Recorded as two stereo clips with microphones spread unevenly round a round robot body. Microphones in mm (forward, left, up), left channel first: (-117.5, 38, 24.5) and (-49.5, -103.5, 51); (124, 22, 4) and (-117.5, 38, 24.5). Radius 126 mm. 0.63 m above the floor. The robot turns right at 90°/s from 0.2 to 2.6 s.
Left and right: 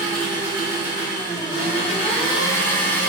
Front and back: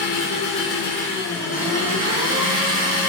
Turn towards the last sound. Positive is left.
turn(degrees=180)